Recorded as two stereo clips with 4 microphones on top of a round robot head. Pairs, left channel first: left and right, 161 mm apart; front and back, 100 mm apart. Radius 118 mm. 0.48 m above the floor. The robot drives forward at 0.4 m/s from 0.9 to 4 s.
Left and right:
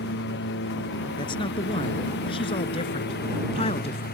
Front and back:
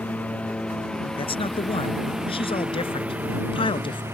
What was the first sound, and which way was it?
A lawn mower, 75° left.